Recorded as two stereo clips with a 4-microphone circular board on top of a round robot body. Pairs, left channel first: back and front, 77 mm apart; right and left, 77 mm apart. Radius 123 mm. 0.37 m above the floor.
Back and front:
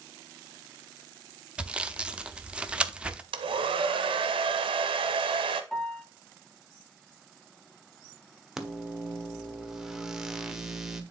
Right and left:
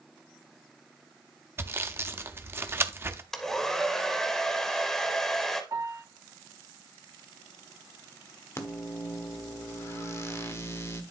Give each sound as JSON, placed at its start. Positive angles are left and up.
{"t": 1.6, "sound": "sawing", "azimuth_deg": 65, "distance_m": 0.8}
{"t": 3.3, "sound": "a hair dryer", "azimuth_deg": -5, "distance_m": 0.6}
{"t": 5.7, "sound": "a piano", "azimuth_deg": 105, "distance_m": 1.8}
{"t": 8.6, "sound": "a microwave", "azimuth_deg": -80, "distance_m": 1.2}